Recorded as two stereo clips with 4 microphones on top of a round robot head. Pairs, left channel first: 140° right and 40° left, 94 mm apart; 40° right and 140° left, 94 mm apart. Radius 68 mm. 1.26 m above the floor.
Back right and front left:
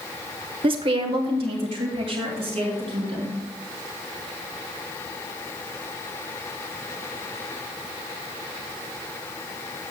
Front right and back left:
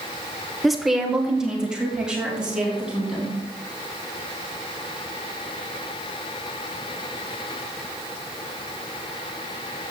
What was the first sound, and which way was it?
A woman speaking, 50° left.